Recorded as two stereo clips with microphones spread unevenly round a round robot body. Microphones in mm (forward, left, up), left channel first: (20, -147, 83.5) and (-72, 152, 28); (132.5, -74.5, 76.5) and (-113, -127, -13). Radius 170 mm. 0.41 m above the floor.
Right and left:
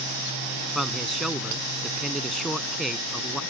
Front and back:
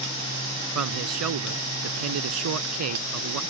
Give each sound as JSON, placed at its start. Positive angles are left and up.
{"t": 0.8, "sound": "a man speaking", "azimuth_deg": -165}